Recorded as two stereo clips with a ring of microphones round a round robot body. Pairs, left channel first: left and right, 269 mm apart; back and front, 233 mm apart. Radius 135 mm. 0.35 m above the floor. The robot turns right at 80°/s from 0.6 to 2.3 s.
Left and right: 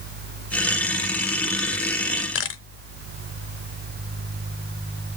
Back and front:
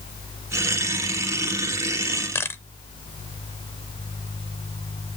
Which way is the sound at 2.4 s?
105° left.